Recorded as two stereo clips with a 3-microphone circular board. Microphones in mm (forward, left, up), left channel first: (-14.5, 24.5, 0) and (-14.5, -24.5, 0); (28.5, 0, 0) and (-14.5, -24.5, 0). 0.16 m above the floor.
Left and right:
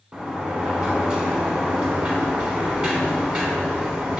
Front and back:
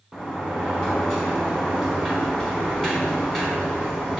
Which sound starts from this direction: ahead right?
A sliding door, at 0.1 s.